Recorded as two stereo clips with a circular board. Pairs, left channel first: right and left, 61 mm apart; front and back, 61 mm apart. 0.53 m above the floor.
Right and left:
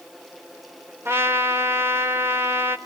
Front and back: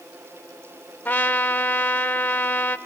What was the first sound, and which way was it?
A trumpet, 55° left.